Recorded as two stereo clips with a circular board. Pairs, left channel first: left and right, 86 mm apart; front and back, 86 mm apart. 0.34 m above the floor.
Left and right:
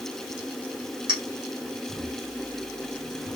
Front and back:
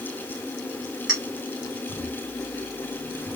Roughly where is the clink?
Right.